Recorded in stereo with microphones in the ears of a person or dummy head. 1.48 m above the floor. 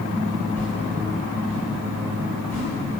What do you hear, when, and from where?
0.6 s a whoosh: 10° left (ahead or behind), 4 m